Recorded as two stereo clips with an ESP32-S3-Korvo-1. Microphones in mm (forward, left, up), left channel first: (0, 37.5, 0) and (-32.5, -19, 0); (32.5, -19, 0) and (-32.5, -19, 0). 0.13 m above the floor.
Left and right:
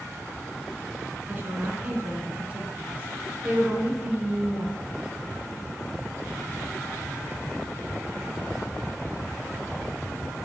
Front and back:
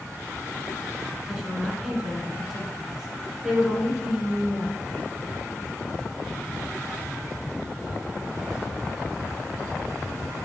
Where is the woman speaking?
105° right, 1.3 m.